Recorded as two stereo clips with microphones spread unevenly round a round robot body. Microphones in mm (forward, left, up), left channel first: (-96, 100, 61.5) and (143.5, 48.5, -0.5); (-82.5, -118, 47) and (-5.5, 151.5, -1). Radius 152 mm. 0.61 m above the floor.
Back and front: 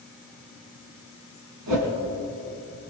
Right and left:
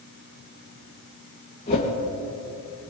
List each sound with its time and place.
1.7 s a whoosh: 35° right, 2.5 m